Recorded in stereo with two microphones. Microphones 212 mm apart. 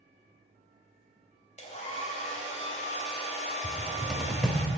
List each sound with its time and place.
1.6 s a hair dryer: 35° left (ahead or behind), 2.0 m
3.6 s a cupboard door: 5° left (ahead or behind), 1.0 m